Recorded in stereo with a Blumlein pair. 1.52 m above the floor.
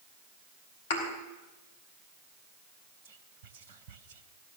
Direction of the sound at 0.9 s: 60° left.